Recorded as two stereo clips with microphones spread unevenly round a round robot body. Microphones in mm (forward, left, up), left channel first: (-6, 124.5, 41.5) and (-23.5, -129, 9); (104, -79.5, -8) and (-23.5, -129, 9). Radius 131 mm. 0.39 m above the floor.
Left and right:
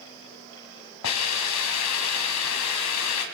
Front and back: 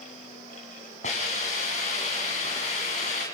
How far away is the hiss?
About 3 m.